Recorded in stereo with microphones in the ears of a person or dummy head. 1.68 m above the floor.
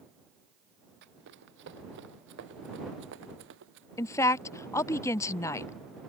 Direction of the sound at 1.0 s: 65° right (ahead or behind).